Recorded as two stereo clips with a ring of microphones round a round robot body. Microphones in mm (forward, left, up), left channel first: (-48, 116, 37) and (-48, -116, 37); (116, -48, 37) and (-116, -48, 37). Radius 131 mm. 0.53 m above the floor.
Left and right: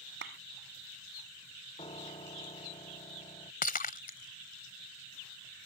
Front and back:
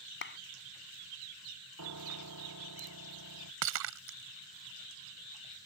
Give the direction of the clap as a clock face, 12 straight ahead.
1 o'clock.